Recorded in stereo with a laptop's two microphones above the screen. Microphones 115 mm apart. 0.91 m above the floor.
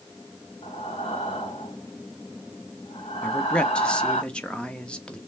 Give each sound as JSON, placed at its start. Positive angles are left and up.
{"t": 0.6, "sound": "breathing", "side_deg": 70, "distance_m": 1.1}
{"t": 3.2, "sound": "a man speaking", "side_deg": 10, "distance_m": 0.7}